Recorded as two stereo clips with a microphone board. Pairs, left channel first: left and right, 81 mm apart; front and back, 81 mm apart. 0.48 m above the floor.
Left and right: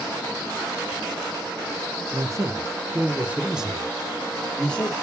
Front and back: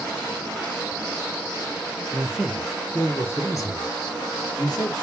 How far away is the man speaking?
About 1.0 m.